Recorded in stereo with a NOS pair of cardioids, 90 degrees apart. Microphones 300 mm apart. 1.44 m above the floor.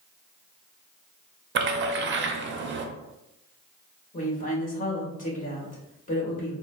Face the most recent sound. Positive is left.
turn(degrees=25)